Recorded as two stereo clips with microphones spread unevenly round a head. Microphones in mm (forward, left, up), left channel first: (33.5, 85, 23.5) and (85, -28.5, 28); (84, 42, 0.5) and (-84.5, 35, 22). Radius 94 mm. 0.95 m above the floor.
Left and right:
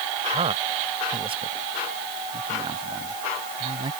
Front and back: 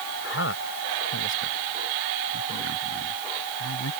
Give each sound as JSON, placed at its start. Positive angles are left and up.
{"t": 0.2, "sound": "a man speaking", "azimuth_deg": -25}